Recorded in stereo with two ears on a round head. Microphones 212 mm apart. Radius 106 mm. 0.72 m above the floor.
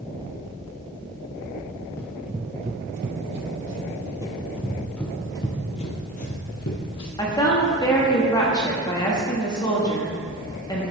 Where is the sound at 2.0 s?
10° left (ahead or behind), 0.9 m; by 4.1 s 65° right (ahead or behind), 2 m.